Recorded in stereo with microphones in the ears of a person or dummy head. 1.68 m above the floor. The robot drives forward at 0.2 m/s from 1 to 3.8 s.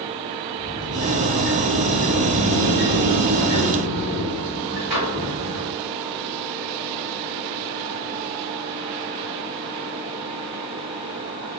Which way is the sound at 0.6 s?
Centre (ahead or behind).